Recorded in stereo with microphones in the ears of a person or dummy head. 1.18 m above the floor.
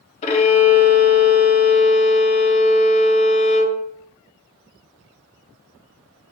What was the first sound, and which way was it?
A violin, 35° left (ahead or behind).